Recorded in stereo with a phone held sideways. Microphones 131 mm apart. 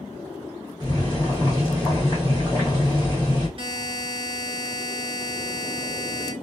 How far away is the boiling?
About 1.6 m.